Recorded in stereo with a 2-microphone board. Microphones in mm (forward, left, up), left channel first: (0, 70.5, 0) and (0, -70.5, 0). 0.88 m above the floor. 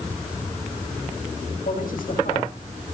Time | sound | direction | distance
1.6 | a man speaking | 80° left | 4.5 m